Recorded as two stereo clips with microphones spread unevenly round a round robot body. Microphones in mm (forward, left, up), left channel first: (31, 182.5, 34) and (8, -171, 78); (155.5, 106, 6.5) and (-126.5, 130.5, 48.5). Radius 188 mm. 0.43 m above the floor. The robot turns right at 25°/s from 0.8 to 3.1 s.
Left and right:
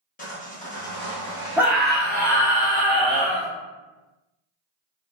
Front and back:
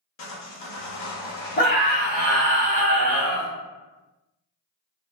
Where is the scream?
Straight ahead, 1.2 m; by 3.5 s 35° left, 1.2 m.